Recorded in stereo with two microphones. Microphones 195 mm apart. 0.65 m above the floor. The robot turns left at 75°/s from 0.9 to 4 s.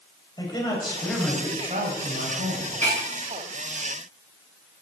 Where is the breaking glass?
10° left (ahead or behind), 8 m; by 3.0 s 25° left (ahead or behind), 8 m.